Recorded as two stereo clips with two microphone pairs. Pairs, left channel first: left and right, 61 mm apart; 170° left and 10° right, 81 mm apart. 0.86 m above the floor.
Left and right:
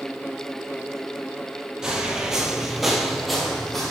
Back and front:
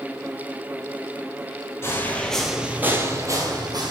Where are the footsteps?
160° right, 1.0 m; by 3.9 s 5° left, 1.5 m.